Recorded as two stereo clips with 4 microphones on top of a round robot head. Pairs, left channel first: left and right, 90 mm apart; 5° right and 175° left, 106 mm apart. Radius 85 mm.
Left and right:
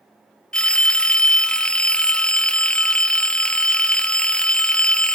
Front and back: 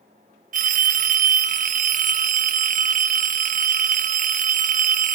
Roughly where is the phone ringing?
Behind.